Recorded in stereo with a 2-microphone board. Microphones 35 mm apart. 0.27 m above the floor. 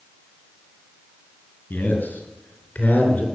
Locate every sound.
1.7 s a man speaking: 60° left (ahead or behind), 4 m; by 3.3 s 50° left (ahead or behind), 4.5 m